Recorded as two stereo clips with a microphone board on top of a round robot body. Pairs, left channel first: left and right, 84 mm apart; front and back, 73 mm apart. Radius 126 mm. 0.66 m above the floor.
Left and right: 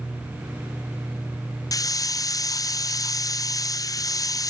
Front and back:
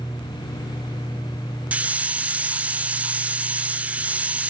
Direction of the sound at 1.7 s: 115° left.